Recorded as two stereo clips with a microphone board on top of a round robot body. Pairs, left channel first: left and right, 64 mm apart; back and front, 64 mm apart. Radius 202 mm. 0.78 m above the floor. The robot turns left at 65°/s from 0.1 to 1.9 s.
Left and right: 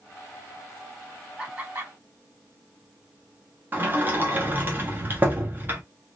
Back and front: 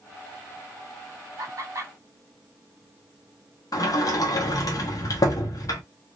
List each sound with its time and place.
1.4 s laughter: 20° right, 2 m; by 1.9 s 50° right, 2 m
3.7 s a sliding door: 150° right, 1.1 m